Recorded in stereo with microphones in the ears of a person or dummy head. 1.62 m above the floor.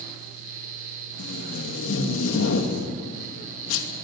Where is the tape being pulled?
80° left, 2.5 m.